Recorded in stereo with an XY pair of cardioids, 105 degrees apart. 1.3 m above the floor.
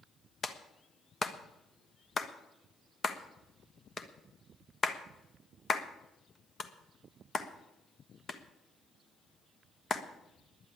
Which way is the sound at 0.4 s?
35° left.